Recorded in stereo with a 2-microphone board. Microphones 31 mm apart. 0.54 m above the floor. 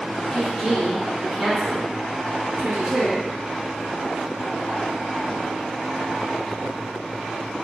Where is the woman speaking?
25° left (ahead or behind), 1.2 m; by 3.3 s 50° right (ahead or behind), 1.6 m.